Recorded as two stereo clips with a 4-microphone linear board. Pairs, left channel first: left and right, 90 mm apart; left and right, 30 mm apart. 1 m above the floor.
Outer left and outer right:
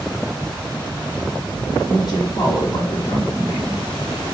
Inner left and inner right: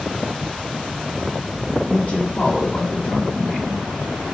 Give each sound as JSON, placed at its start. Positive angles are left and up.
{"t": 1.9, "sound": "a woman speaking", "side_deg": 45, "distance_m": 1.6}